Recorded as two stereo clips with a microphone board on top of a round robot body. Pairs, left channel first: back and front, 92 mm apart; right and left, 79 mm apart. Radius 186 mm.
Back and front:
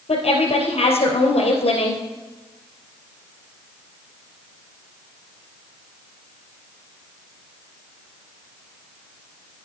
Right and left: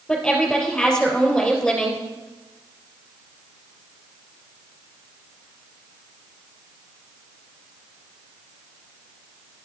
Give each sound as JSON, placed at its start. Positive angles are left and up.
{"t": 0.1, "sound": "a woman speaking", "azimuth_deg": -165, "distance_m": 3.5}